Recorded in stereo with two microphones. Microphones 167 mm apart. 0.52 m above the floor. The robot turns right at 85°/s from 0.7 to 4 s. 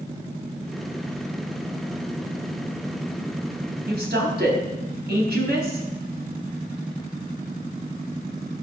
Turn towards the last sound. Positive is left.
turn(degrees=-70)  # may be behind; listen again after turning